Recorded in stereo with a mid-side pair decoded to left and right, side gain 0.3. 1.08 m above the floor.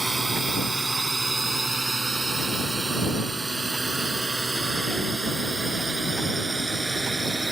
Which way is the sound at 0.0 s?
25° right.